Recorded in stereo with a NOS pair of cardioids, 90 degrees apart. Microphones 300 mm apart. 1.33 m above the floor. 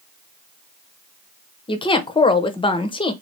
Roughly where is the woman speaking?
Ahead.